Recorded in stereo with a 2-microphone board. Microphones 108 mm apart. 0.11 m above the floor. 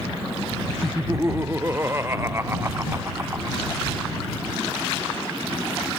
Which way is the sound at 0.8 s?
25° right (ahead or behind).